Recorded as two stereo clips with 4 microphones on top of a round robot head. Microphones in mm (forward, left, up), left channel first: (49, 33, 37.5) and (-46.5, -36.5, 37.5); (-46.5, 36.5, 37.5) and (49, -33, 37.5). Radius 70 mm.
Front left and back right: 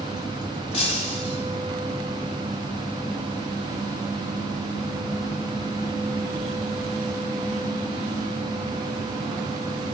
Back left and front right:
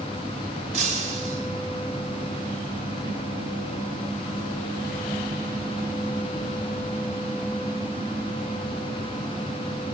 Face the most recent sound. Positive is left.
turn(degrees=0)